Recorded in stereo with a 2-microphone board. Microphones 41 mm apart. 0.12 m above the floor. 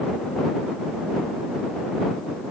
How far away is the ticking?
No ticking in this recording.